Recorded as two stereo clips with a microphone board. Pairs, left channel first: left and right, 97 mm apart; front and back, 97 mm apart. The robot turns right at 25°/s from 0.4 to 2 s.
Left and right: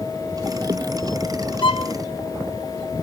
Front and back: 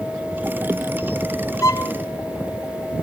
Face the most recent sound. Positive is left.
turn(degrees=65)